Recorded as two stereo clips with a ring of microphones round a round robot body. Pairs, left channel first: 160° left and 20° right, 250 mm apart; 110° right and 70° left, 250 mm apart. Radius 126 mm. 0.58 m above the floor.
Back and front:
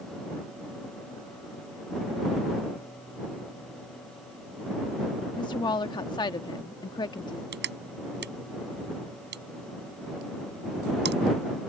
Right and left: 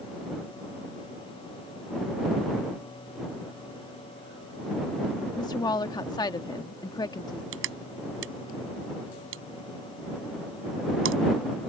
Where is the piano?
No piano in this recording.